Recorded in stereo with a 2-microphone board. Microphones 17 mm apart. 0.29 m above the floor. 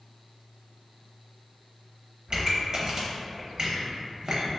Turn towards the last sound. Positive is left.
turn(degrees=-45)  # may be behind; listen again after turning